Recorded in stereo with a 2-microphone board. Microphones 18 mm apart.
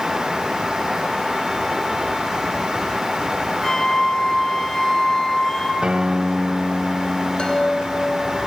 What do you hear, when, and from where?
3.6 s a flute: 25° left (ahead or behind), 5 m
5.8 s a guitar: 55° right (ahead or behind), 2.0 m
7.4 s a chime: 55° left (ahead or behind), 2 m